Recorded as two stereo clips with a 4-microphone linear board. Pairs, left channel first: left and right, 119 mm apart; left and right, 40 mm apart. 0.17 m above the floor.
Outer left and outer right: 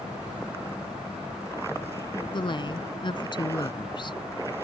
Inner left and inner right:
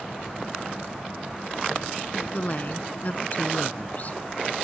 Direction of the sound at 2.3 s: 40° left (ahead or behind).